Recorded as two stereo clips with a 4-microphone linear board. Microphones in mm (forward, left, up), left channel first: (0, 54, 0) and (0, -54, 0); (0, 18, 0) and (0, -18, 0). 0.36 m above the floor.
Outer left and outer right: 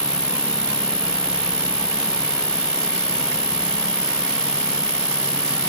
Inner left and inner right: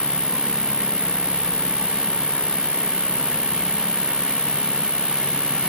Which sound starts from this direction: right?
An insect, at 0.0 s.